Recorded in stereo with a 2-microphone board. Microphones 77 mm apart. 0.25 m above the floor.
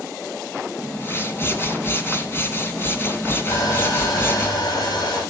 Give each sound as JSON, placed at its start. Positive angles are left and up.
{"t": 0.8, "sound": "a whoosh", "side_deg": 30, "distance_m": 2.5}
{"t": 3.5, "sound": "sawing", "side_deg": 75, "distance_m": 10.0}